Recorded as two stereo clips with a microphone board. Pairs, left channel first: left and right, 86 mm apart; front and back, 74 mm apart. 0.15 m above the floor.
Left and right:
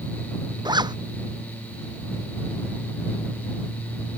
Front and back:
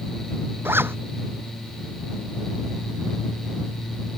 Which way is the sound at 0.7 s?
120° right.